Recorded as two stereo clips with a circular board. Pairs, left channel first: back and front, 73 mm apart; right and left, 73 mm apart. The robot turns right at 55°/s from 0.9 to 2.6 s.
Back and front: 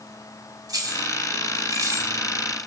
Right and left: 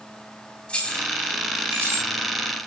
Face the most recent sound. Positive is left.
turn(degrees=75)